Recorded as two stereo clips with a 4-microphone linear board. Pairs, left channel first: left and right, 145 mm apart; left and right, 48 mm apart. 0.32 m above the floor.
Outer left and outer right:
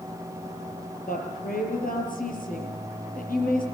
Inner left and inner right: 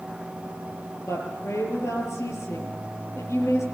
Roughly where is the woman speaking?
Left.